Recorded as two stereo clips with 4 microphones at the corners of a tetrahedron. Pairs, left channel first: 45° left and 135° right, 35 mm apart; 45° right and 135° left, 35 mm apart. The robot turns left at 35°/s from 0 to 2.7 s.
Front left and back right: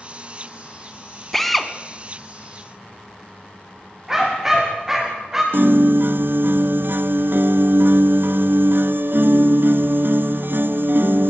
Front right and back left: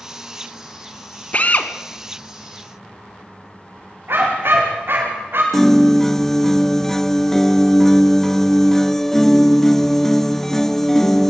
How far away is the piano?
About 0.6 m.